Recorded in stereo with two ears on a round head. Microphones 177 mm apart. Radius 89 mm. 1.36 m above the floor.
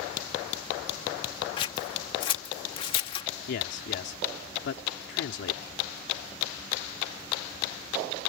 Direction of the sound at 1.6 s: 25° left (ahead or behind).